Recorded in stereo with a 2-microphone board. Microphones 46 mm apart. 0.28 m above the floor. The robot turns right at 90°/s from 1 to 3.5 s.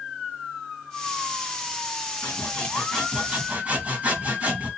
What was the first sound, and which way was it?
Sawing, 110° left.